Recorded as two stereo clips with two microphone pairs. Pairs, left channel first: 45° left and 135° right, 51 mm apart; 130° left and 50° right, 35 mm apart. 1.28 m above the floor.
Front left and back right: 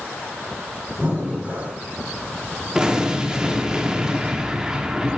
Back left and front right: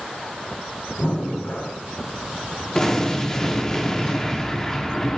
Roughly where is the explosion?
Behind.